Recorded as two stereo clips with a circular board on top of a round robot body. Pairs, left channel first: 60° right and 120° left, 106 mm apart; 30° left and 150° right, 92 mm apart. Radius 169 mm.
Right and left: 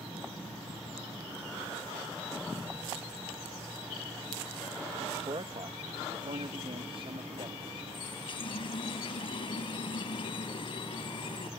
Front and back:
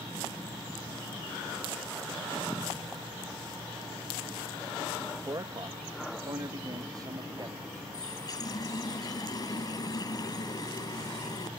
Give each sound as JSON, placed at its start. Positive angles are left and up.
{"t": 5.1, "sound": "a man speaking", "azimuth_deg": 160}
{"t": 7.9, "sound": "a running tap", "azimuth_deg": -20}